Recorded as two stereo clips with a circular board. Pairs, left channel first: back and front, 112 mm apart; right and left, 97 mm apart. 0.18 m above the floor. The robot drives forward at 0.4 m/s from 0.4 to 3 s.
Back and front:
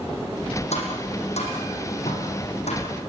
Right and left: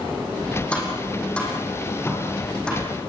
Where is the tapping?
170° right, 6 m.